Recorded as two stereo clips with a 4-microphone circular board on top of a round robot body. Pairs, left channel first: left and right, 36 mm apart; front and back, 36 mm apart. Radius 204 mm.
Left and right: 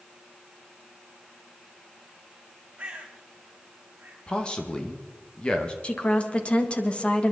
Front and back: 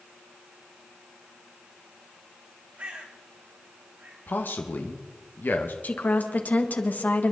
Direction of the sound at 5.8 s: 35° left.